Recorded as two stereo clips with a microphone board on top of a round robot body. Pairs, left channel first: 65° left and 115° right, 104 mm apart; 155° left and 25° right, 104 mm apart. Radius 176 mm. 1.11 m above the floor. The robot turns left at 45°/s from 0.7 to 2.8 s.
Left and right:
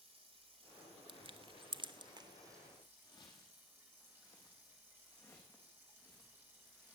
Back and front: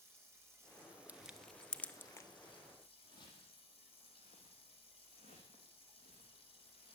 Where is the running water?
90° right, 3.5 m; by 7.0 s straight behind, 3.5 m.